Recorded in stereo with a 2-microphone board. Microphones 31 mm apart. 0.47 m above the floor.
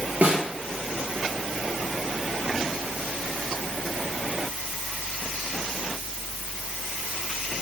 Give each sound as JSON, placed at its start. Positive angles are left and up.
{"t": 0.2, "sound": "a snare drum", "side_deg": -55, "distance_m": 5.0}